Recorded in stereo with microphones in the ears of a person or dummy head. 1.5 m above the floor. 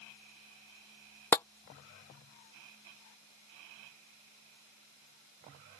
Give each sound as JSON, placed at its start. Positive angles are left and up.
{"t": 1.3, "sound": "tapping", "side_deg": 10}